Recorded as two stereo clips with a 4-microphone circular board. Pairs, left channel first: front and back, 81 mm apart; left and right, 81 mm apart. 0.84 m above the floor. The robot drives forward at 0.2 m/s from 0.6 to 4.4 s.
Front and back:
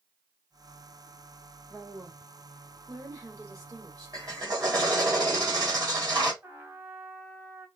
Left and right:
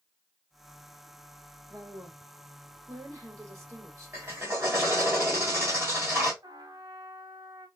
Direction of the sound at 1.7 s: 130° right.